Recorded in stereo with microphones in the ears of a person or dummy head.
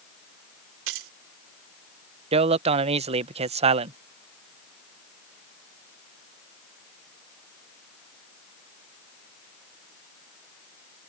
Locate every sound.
0.9 s keys jangling: 80° right
2.3 s a man speaking: 30° right (ahead or behind)